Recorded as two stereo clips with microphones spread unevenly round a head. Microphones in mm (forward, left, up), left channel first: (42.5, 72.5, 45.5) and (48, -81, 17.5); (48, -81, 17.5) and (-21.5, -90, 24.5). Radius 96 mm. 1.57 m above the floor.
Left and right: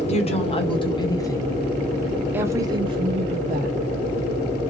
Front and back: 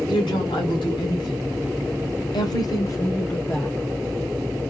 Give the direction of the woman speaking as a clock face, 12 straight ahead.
11 o'clock.